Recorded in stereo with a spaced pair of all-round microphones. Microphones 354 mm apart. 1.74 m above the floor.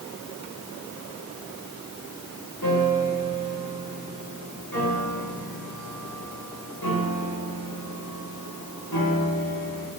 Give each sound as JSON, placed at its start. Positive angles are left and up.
{"t": 2.6, "sound": "a piano", "side_deg": 80, "distance_m": 6.0}